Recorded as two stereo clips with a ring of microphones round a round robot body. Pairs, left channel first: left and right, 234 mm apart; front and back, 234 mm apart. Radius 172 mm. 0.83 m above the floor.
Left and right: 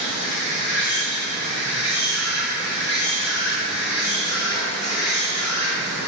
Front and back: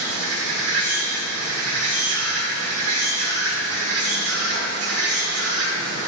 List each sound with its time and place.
0.0 s an insect: 165° left, 1.5 m